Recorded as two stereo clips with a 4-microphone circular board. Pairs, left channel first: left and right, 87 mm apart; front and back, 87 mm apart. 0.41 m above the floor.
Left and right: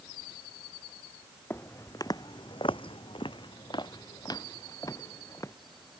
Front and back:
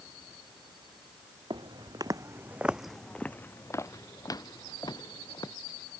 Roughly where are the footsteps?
Behind left.